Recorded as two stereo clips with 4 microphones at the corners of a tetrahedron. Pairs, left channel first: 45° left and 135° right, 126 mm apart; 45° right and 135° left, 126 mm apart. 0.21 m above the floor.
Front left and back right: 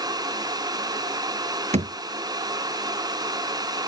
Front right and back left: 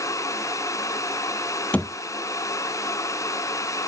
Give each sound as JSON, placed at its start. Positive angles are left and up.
{"t": 1.7, "sound": "a thud", "azimuth_deg": -125}